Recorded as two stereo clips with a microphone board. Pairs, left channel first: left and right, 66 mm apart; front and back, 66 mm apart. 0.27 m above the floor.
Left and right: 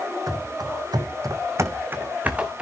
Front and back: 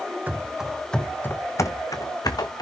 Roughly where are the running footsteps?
Behind right.